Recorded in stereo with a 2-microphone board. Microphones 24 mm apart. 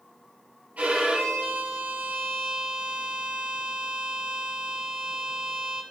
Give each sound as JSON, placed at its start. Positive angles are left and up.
{"t": 0.8, "sound": "a violin", "side_deg": -80, "distance_m": 5.0}